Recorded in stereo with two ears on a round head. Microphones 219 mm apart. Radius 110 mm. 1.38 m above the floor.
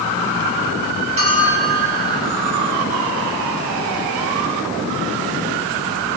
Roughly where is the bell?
Right.